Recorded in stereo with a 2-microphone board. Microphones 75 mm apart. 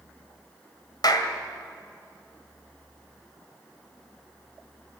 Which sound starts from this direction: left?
A clap, at 1.0 s.